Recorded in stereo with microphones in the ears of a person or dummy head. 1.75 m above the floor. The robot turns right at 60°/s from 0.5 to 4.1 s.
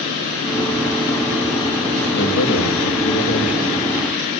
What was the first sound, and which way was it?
A man speaking, 60° left.